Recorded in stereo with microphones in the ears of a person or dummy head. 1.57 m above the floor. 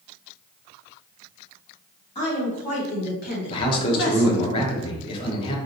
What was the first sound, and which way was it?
A woman speaking, 35° left (ahead or behind).